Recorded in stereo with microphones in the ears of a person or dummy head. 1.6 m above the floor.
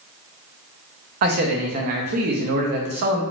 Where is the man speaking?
50° right (ahead or behind), 0.6 m.